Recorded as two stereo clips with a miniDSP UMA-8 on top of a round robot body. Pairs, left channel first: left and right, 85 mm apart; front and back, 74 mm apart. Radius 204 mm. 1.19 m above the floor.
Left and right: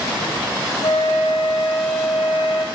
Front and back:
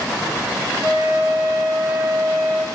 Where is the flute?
115° left, 0.6 m.